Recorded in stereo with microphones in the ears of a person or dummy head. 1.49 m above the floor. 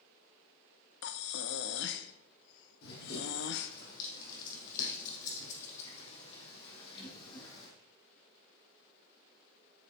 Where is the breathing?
65° left (ahead or behind), 0.7 m.